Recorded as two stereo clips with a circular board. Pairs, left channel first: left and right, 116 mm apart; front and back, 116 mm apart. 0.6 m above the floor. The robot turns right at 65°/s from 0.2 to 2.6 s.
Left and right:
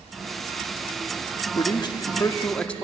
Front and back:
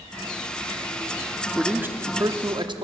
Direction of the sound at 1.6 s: 95° left.